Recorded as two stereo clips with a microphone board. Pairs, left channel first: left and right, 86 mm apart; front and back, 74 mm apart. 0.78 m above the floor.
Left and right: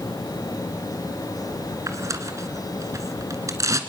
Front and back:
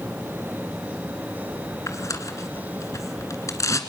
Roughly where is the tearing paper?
Ahead right.